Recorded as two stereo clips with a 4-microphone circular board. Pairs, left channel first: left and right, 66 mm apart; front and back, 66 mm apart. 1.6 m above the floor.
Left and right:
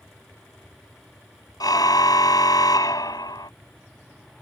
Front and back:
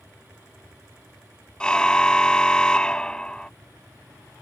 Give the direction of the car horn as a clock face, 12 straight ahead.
9 o'clock.